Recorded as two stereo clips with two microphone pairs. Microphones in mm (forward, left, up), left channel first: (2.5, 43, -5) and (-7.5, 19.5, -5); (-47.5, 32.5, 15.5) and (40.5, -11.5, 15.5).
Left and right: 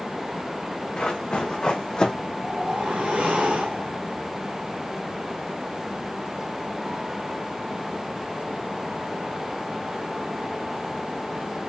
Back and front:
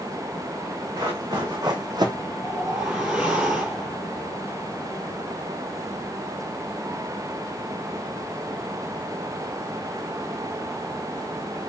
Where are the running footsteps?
20° left, 1.6 m; by 2.1 s 10° left, 0.6 m.